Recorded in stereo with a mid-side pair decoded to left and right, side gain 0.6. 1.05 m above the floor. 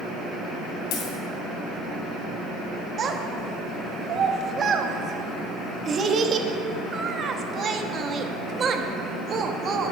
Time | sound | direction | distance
0.9 | a dropped coin | 65° left | 2.5 m
3.0 | a child speaking | 40° right | 1.0 m